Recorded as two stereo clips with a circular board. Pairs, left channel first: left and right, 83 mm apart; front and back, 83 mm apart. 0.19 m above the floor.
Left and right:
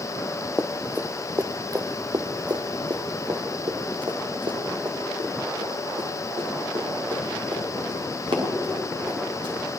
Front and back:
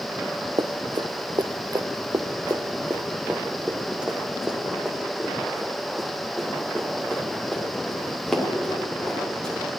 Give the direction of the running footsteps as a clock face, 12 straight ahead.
6 o'clock.